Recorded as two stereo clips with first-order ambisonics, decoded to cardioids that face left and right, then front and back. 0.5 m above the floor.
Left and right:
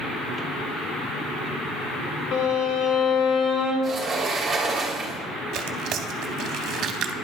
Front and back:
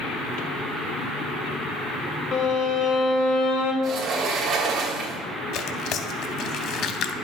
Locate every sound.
2.3 s a violin: 45° left, 1.2 m
3.8 s a sliding door: 160° right, 1.0 m
5.5 s tearing paper: 40° right, 0.6 m